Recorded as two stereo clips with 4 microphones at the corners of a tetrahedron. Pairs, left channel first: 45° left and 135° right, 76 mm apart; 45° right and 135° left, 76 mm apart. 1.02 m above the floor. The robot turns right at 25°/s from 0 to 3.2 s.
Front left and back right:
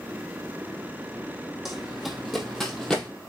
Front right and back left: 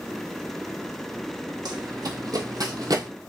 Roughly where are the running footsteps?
Behind left.